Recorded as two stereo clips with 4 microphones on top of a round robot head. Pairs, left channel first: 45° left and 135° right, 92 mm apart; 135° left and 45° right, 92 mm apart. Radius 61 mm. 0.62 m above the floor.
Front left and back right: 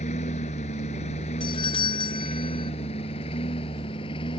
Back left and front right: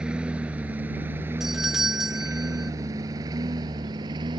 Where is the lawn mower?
40° left; by 4.4 s 5° left.